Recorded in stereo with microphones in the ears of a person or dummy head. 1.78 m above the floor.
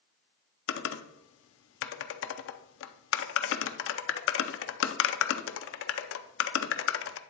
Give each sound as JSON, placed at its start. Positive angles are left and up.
{"t": 0.7, "sound": "typing on a keyboard", "side_deg": 75, "distance_m": 0.6}